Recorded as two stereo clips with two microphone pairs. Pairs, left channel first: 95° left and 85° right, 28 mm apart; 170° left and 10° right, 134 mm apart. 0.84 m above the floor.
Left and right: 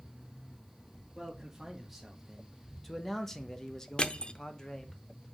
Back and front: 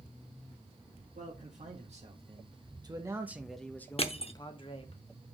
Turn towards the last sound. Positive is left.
turn(degrees=140)